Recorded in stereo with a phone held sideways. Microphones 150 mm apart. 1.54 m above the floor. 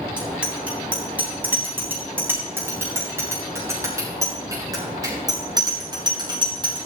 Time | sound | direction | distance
0.2 | a bicycle bell | 5° right (ahead or behind) | 9.5 m